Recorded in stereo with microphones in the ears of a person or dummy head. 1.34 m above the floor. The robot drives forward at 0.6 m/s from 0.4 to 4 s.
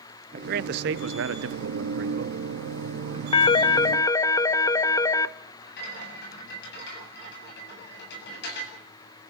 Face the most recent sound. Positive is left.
turn(degrees=55)  # may be behind; listen again after turning